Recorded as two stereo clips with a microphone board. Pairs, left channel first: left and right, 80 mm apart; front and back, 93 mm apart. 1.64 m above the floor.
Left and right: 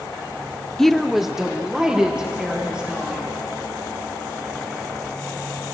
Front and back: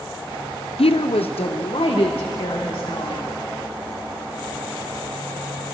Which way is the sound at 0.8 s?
5° left.